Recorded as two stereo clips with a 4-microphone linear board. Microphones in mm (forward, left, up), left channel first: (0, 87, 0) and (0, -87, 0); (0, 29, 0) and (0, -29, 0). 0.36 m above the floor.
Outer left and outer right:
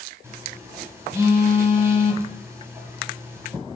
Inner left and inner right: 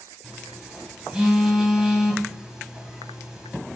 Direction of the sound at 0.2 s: 15° right (ahead or behind).